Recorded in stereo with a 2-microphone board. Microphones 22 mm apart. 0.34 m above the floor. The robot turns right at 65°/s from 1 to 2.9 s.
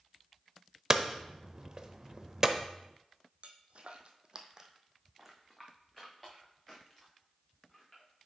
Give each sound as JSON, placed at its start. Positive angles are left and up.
{"t": 0.9, "sound": "hammering", "side_deg": -25, "distance_m": 0.6}
{"t": 3.4, "sound": "footsteps", "side_deg": -60, "distance_m": 0.9}